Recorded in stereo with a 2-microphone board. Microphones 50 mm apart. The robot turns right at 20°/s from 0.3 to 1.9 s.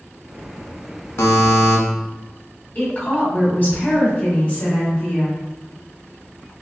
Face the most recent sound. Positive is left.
turn(degrees=35)  # may be behind; listen again after turning